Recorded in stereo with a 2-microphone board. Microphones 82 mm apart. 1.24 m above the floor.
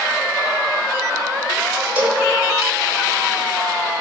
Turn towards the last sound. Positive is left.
turn(degrees=-20)  # may be behind; listen again after turning